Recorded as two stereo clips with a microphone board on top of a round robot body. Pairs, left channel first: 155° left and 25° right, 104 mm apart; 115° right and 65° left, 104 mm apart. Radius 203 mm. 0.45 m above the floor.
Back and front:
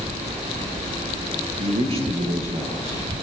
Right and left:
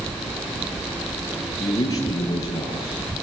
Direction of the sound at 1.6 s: 55° right.